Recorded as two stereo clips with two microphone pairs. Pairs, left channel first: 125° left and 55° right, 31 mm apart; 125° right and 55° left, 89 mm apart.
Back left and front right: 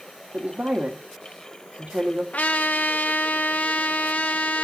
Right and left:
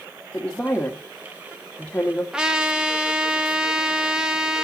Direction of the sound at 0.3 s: 50° right.